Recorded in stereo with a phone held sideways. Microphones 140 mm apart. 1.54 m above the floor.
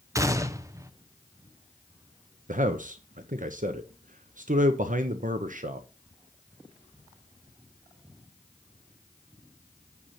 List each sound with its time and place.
0.1 s a gunshot: 20° right (ahead or behind), 0.7 m
2.5 s a man speaking: 60° right (ahead or behind), 0.9 m